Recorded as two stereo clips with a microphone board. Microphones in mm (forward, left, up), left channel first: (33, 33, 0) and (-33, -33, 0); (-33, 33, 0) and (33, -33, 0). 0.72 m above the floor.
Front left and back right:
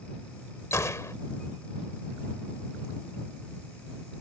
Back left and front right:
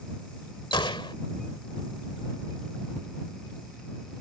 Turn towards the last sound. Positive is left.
turn(degrees=105)